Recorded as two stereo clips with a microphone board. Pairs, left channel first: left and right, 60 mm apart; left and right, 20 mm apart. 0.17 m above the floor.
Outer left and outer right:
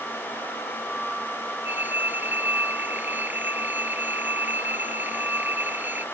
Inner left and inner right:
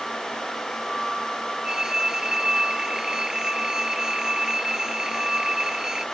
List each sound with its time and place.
1.6 s a phone ringing: 30° right (ahead or behind)